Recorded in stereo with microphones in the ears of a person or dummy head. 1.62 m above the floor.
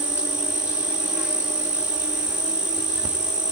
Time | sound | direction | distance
0.0 | an insect | 10° right (ahead or behind) | 1.5 m